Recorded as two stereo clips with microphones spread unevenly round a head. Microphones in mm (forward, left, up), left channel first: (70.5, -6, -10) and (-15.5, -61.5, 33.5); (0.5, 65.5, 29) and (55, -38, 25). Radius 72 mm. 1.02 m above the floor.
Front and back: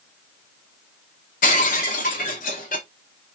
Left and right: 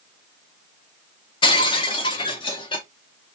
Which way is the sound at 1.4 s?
80° left.